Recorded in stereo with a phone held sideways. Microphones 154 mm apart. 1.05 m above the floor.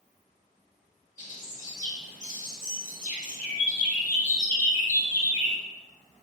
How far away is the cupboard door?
I don't hear a cupboard door.